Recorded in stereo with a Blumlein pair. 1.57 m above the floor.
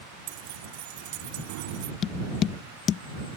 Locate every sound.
0.3 s keys jangling: 50° right
2.0 s tapping: 30° left